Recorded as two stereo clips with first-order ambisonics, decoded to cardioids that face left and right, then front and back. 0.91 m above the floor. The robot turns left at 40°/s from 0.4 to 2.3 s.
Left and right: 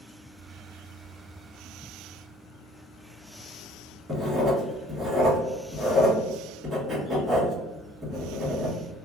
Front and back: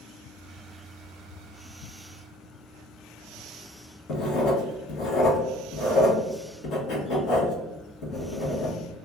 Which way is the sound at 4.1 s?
20° right.